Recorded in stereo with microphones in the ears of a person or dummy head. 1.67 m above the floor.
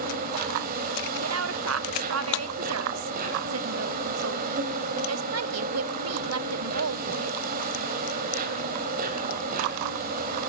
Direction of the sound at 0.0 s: 45° right (ahead or behind).